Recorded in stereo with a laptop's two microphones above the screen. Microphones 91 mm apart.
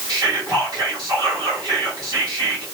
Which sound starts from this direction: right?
Whispering, at 0.1 s.